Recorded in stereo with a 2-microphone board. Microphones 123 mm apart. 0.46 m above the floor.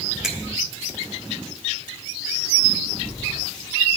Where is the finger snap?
5° right (ahead or behind), 1.2 m.